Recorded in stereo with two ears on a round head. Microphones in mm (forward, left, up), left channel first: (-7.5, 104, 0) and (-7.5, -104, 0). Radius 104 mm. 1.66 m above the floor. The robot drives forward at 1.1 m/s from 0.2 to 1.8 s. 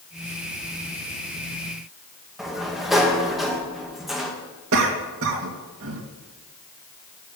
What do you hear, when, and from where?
2.4 s a sliding door: centre (ahead or behind), 1.7 m
4.7 s a cough: 60° right (ahead or behind), 2 m